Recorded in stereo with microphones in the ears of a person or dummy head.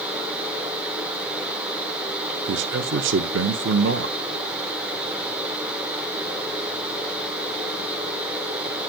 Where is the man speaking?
65° right (ahead or behind), 0.7 m.